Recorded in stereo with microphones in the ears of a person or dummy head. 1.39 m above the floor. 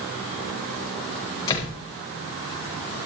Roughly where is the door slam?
Left.